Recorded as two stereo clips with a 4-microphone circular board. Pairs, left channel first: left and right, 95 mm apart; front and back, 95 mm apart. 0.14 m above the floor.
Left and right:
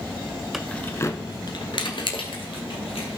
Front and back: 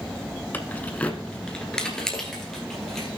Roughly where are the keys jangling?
Ahead.